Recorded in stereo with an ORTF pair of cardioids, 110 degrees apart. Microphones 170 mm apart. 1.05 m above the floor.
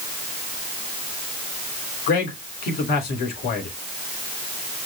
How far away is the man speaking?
About 3 m.